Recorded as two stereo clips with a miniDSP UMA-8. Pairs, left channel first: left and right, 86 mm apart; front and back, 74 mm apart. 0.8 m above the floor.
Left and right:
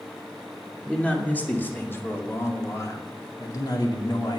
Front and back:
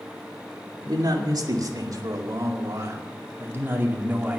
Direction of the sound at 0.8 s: 165° left.